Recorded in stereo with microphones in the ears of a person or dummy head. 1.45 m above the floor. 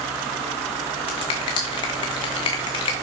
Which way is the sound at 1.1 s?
20° left (ahead or behind).